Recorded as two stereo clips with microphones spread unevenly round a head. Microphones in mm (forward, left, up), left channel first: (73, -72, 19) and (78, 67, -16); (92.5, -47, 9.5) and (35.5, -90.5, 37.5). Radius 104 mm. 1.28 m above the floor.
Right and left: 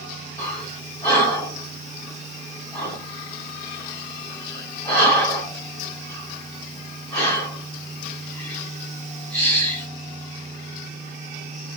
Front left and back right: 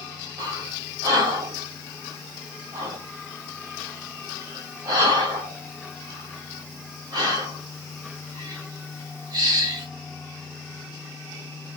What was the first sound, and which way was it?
Breathing, 165° right.